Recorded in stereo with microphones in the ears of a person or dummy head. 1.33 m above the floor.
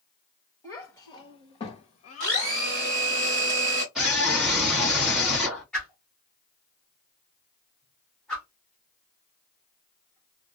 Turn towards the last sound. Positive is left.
turn(degrees=5)  # may be behind; listen again after turning